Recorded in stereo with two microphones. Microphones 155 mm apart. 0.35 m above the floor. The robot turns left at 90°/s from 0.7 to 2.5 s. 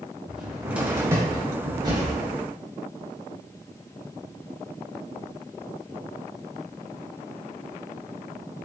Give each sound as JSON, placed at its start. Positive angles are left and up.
{"t": 0.3, "sound": "a cupboard door", "side_deg": -5, "distance_m": 0.9}